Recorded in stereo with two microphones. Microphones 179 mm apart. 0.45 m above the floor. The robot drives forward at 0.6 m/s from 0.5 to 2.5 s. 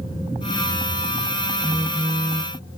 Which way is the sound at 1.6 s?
5° right (ahead or behind).